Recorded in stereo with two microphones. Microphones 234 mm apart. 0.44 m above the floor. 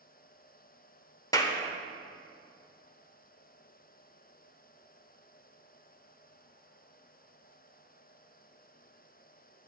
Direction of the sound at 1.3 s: 15° left (ahead or behind).